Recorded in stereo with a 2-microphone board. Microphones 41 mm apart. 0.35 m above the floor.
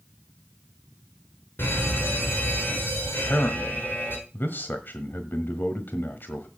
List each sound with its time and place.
1.6 s a fire alarm: 60° left (ahead or behind), 6 m
3.2 s a man speaking: 55° left (ahead or behind), 1.4 m